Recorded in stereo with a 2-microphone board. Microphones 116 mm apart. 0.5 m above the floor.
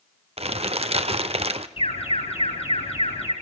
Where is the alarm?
60° left (ahead or behind), 5 m.